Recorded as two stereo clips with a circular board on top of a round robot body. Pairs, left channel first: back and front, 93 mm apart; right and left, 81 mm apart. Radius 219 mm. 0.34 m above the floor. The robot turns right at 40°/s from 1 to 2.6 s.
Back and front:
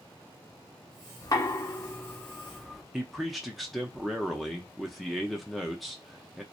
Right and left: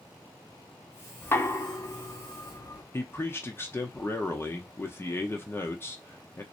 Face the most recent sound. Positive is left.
turn(degrees=-90)